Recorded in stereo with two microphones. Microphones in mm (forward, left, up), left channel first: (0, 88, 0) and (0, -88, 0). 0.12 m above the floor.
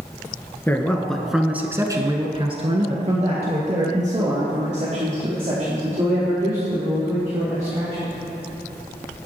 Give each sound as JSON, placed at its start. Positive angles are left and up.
{"t": 0.7, "sound": "a man speaking", "side_deg": 10, "distance_m": 1.7}